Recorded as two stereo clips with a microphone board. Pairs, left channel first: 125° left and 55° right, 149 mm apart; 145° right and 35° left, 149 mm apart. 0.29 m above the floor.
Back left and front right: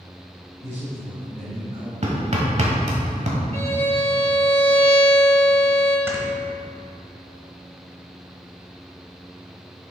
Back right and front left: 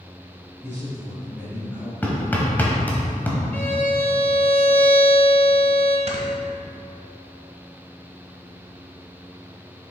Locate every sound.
0.6 s a man speaking: 75° right, 1.7 m
2.0 s hammering: 70° right, 1.2 m
3.5 s a violin: 70° right, 0.9 m
6.1 s snoring: 15° left, 1.1 m